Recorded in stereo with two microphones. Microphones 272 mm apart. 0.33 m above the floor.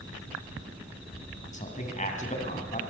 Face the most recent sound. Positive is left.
turn(degrees=25)  # may be behind; listen again after turning